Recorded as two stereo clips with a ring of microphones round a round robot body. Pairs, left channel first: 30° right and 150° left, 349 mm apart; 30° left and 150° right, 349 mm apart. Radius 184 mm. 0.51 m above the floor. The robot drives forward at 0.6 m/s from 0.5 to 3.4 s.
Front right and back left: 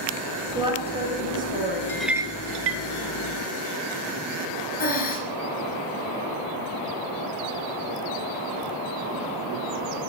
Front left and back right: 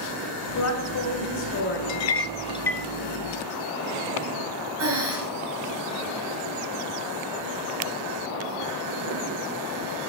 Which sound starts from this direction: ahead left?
A clink, at 1.9 s.